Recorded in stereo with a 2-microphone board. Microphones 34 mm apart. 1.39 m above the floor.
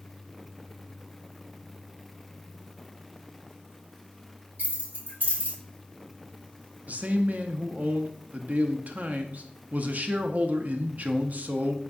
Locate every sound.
4.6 s keys jangling: 70° right (ahead or behind), 1.6 m
6.9 s a man speaking: 45° right (ahead or behind), 0.5 m